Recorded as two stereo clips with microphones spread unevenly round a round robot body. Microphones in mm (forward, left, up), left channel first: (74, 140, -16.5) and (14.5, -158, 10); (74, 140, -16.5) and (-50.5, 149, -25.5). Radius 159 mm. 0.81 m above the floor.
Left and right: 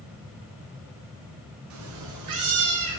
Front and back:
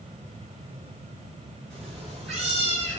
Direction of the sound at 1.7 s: 85° right.